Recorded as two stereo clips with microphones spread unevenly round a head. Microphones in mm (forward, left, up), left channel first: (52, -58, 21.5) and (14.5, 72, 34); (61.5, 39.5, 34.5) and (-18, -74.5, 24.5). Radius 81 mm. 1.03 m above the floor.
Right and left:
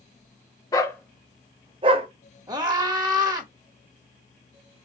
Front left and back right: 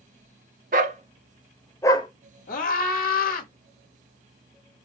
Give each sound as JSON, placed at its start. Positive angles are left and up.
{"t": 0.7, "sound": "a dog barking", "azimuth_deg": -140, "distance_m": 0.6}
{"t": 2.5, "sound": "a scream", "azimuth_deg": 45, "distance_m": 2.0}